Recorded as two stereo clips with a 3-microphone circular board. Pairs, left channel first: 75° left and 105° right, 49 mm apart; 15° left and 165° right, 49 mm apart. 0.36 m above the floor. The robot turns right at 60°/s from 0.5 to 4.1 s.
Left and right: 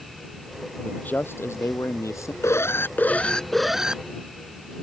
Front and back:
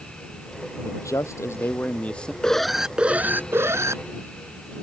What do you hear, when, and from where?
0.8 s a man speaking: 5° left; by 2.3 s 90° left
2.4 s an alarm: 90° left; by 4.0 s 175° right